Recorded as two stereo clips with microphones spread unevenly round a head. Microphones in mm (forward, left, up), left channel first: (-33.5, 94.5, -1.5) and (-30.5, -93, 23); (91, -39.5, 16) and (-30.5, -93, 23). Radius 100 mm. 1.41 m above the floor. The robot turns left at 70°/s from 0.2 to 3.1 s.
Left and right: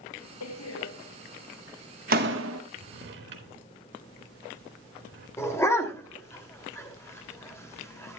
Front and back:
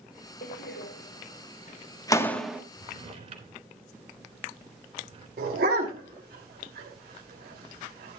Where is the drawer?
95° right, 2.5 m; by 5.3 s 120° right, 2.5 m.